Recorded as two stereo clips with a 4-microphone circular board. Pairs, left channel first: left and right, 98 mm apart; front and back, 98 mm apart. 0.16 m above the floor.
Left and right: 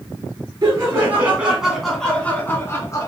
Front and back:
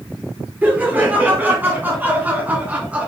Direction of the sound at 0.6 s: 120° right.